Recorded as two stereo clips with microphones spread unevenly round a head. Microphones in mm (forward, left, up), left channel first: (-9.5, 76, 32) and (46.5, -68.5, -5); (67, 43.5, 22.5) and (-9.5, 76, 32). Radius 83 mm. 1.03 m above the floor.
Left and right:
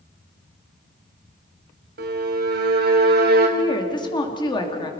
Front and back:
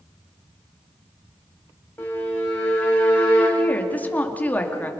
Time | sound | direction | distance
2.0 | a violin | 100° right | 3 m
3.6 | a woman speaking | 45° left | 2.5 m